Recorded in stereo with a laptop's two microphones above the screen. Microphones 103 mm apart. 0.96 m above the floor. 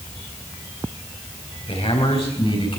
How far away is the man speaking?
About 5 m.